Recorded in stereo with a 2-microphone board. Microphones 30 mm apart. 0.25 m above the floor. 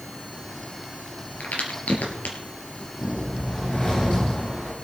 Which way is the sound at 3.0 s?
25° left (ahead or behind).